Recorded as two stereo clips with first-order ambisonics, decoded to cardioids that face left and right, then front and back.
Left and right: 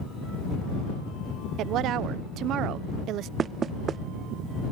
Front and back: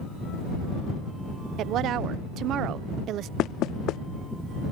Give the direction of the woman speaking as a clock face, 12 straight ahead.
4 o'clock.